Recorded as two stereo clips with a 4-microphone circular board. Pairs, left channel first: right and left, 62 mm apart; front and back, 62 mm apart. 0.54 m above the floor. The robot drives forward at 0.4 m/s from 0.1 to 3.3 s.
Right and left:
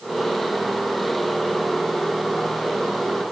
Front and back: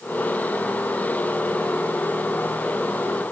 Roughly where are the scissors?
I don't hear scissors.